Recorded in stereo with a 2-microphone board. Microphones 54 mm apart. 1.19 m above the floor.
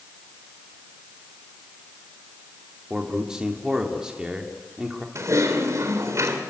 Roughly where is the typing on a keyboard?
Right.